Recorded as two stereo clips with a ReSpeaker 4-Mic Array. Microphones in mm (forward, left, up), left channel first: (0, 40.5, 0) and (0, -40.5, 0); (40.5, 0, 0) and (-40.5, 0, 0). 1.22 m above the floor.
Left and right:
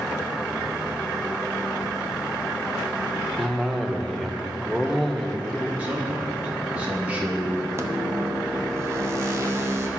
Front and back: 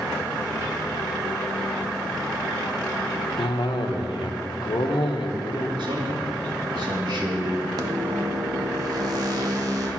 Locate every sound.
3.4 s a cough: straight ahead, 0.9 m
5.8 s a man speaking: 165° right, 1.8 m
7.8 s a microwave: 145° right, 0.9 m